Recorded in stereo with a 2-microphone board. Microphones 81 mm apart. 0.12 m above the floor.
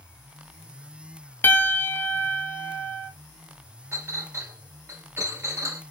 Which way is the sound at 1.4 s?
25° left (ahead or behind).